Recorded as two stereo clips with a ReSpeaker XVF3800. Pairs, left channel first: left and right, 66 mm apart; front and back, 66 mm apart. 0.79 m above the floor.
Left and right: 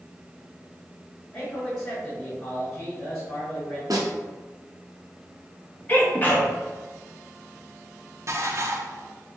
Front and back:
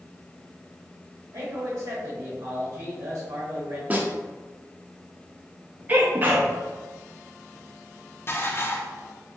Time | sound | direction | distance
1.3 | a man speaking | 165° left | 1.9 m
3.9 | a snare drum | 115° right | 0.8 m
5.9 | a sneeze | 135° left | 0.9 m
8.3 | dishes clattering | 50° right | 0.6 m